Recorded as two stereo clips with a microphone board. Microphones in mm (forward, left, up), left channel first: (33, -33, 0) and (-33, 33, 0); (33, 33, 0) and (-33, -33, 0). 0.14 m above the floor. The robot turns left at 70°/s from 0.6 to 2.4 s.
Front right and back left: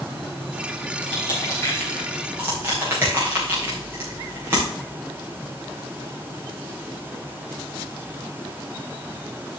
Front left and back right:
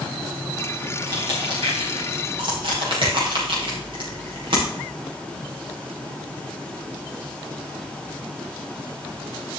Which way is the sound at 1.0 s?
60° right.